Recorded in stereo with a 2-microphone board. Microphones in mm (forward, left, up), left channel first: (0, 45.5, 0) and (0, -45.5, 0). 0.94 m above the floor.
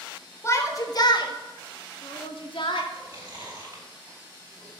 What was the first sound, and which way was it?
A shout, 30° left (ahead or behind).